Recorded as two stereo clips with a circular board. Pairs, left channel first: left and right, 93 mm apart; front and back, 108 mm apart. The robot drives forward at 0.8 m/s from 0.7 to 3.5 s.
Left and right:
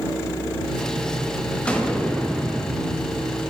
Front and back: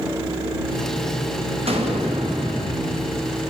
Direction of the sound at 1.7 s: 165° left.